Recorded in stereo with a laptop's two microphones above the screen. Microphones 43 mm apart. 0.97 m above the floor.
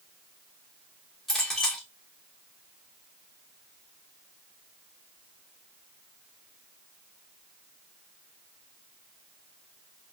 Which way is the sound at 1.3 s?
10° left (ahead or behind).